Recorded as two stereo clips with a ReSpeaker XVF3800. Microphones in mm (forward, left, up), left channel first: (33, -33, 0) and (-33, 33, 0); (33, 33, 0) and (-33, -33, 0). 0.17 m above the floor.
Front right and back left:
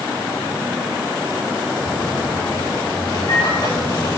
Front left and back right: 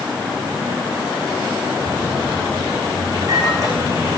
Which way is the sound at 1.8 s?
85° right.